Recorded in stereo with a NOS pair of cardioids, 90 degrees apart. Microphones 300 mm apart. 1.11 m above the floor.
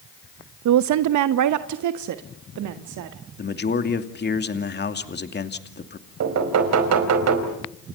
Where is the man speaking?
35° left, 2.5 m.